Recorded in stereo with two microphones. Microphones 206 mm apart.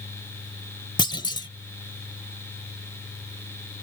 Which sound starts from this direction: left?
A clunk, at 1.0 s.